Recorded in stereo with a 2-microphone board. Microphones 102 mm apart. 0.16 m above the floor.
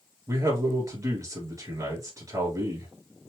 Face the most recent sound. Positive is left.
turn(degrees=-35)  # may be behind; listen again after turning